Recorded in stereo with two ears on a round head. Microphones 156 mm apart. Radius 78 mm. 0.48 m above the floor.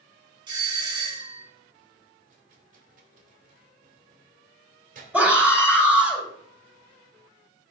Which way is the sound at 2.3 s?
50° right (ahead or behind).